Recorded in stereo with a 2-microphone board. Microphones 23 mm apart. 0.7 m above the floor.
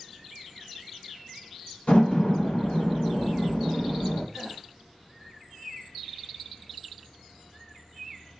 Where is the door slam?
60° left (ahead or behind), 1.5 m.